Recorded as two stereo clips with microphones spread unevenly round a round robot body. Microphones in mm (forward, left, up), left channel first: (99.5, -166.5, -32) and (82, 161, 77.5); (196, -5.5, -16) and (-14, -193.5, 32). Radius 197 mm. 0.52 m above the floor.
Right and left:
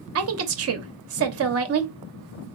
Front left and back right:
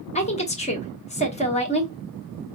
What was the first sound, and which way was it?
A woman speaking, 50° left.